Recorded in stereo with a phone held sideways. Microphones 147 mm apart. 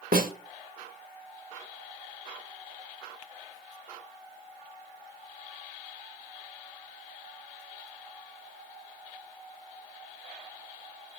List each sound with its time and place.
0.1 s a snare drum: 75° right (ahead or behind), 1.7 m